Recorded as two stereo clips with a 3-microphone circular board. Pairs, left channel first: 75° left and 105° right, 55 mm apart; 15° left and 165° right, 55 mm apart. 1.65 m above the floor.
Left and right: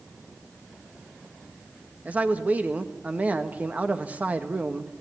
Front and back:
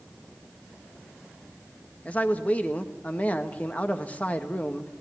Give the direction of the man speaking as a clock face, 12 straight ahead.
1 o'clock.